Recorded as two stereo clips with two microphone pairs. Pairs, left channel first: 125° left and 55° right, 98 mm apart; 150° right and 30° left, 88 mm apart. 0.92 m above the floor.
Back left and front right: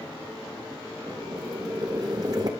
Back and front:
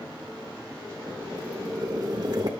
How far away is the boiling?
About 1.8 m.